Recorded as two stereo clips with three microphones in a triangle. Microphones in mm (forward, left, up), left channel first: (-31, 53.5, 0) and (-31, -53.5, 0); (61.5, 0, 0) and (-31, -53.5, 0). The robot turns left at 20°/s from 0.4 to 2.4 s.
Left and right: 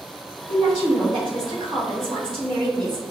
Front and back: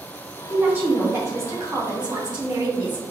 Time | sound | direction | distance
0.5 | a woman speaking | 75° right | 1.8 m